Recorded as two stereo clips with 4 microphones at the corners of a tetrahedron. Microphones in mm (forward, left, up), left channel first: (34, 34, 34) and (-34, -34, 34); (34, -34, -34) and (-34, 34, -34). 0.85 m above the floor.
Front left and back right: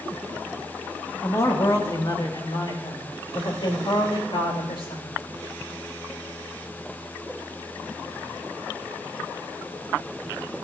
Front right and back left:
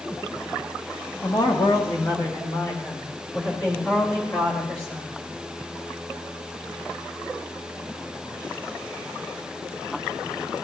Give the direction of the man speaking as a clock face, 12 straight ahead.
12 o'clock.